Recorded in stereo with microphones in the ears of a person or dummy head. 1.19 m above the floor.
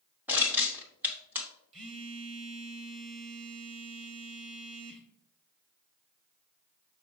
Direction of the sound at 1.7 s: 30° right (ahead or behind).